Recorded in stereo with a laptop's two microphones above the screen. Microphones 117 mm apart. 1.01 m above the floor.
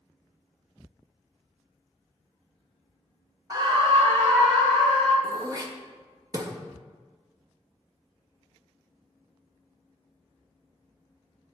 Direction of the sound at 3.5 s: 30° right (ahead or behind).